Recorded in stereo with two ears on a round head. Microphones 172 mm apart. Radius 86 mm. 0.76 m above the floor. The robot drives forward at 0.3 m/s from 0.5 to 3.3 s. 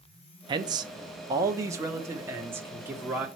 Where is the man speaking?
25° right (ahead or behind), 0.6 m; by 3.3 s 10° right (ahead or behind), 1.3 m.